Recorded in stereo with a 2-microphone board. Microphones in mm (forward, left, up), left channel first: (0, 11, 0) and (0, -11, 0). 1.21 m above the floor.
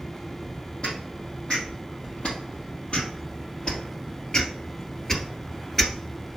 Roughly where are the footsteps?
Left.